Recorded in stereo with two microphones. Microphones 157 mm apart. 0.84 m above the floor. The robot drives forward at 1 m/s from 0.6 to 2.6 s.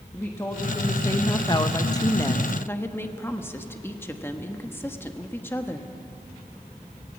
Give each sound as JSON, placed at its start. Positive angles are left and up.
{"t": 0.1, "sound": "a woman speaking", "side_deg": 15, "distance_m": 1.2}